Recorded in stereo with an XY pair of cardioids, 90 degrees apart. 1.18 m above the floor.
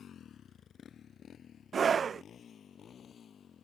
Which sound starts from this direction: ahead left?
A motorcycle, at 0.0 s.